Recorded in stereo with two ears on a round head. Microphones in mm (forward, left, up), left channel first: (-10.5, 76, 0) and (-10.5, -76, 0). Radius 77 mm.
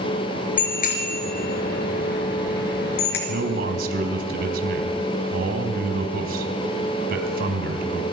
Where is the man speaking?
55° right (ahead or behind), 3.5 m.